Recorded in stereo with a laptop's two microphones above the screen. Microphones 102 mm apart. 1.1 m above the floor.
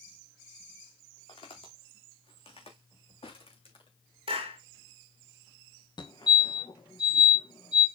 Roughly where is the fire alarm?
Left.